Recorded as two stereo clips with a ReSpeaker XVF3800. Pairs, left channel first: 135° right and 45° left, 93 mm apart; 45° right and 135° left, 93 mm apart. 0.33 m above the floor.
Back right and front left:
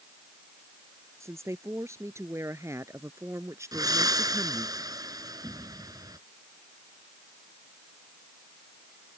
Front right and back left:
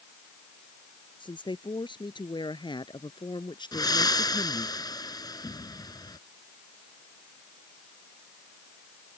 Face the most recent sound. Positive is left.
turn(degrees=0)